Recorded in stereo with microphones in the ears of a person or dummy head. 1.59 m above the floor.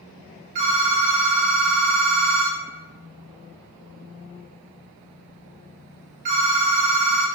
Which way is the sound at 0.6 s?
35° right (ahead or behind).